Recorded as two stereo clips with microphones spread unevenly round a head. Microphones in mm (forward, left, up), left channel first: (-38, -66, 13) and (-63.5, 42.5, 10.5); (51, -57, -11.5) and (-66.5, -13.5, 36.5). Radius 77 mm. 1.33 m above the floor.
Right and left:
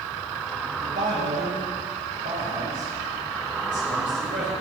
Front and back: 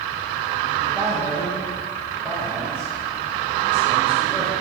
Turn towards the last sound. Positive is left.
turn(degrees=75)